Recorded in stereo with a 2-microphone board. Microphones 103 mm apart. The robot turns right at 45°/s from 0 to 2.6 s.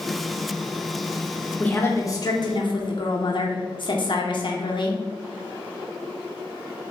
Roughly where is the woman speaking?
Ahead.